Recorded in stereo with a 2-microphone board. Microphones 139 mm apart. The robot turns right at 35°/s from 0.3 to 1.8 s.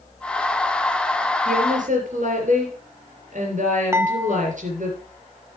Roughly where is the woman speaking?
Right.